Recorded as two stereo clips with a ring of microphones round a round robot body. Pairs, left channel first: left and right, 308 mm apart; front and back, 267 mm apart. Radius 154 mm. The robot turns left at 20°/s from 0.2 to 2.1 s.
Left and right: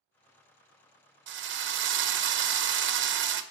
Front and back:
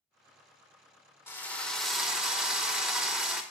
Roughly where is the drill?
Right.